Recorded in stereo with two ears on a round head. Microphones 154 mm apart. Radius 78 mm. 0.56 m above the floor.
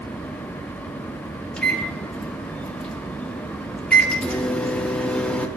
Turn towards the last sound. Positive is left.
turn(degrees=5)  # may be behind; listen again after turning